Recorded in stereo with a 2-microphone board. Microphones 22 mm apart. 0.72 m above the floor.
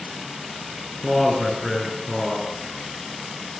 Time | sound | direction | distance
1.0 | a man speaking | 10° left (ahead or behind) | 9 m